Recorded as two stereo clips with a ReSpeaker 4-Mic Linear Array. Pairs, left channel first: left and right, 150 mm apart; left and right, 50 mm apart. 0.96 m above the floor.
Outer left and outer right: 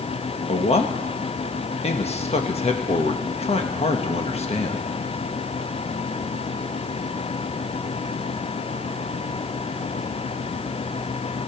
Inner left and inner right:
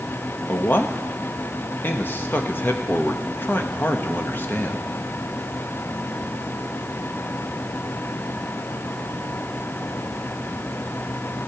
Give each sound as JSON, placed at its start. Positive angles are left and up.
{"t": 0.5, "sound": "a man speaking", "side_deg": 45, "distance_m": 1.3}